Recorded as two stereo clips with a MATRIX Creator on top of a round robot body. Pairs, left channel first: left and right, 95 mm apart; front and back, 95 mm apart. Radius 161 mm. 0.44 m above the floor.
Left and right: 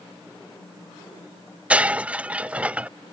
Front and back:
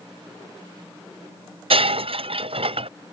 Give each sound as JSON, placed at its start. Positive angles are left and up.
{"t": 1.7, "sound": "breaking glass", "azimuth_deg": -170}